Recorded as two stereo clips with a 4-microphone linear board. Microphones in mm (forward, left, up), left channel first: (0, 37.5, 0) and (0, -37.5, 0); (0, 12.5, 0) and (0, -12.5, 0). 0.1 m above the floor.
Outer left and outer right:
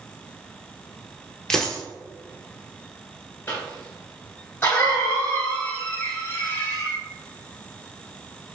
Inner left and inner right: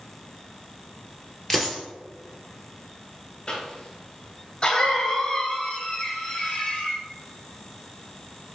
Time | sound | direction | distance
1.5 | a dropped coin | 5° left (ahead or behind) | 1.0 m
3.5 | a cough | 25° left (ahead or behind) | 1.7 m